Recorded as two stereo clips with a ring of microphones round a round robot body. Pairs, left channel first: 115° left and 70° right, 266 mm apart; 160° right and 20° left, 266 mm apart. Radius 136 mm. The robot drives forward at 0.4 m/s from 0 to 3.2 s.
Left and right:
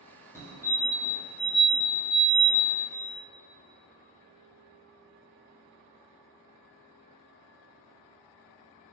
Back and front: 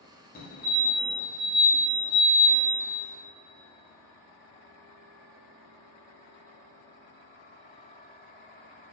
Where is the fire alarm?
175° right, 1.7 m.